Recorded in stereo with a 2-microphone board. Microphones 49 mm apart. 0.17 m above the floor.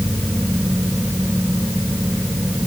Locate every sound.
Only background noise.